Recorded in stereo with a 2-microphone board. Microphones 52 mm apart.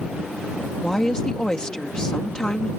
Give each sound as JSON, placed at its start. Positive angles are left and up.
{"t": 0.8, "sound": "a woman speaking", "side_deg": 15}